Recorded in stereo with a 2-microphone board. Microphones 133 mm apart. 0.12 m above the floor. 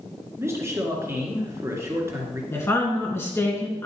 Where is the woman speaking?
20° left (ahead or behind), 1.7 m.